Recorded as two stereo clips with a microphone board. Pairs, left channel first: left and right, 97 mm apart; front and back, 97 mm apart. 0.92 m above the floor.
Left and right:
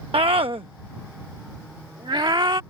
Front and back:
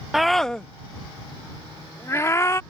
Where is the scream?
95° right; by 2.6 s 55° right.